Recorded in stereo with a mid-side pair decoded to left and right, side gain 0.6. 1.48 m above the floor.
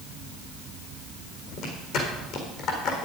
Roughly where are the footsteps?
Left.